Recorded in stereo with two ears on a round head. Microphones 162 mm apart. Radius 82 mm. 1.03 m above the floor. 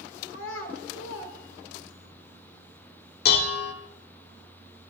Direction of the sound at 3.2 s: 65° left (ahead or behind).